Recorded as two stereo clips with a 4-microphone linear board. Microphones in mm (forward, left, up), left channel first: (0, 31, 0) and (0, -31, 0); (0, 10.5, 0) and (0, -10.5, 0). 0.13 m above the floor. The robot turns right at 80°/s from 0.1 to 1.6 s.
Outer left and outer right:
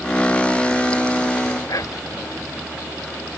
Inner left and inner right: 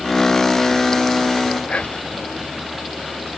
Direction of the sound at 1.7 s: 65° left (ahead or behind).